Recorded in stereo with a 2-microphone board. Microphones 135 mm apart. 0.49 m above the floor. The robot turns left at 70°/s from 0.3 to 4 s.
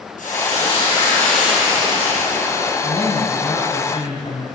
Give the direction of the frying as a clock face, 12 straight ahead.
9 o'clock.